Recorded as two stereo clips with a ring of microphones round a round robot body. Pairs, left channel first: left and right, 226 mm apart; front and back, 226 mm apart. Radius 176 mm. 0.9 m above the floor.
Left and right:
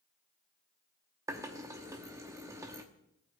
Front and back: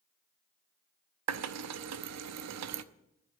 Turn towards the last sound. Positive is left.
turn(degrees=-170)